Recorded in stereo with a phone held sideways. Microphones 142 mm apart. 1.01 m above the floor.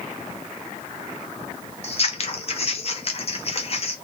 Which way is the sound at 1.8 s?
45° left (ahead or behind).